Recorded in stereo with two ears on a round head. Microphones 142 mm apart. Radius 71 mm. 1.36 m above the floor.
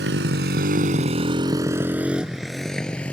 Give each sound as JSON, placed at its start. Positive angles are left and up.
{"t": 0.0, "sound": "a motorcycle", "side_deg": -80}